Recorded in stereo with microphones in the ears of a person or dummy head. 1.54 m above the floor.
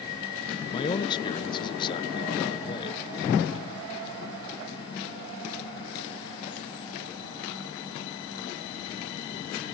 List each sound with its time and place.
0.7 s a man speaking: 25° left (ahead or behind)